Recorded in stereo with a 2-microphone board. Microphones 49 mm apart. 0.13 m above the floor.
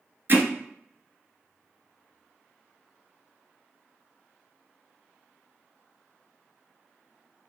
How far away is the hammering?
About 1.1 m.